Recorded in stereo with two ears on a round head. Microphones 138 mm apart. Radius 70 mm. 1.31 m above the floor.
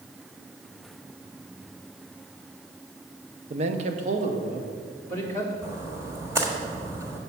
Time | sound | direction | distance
3.5 | a man speaking | 40° right (ahead or behind) | 0.7 m
5.6 | a splash | 20° right (ahead or behind) | 1.4 m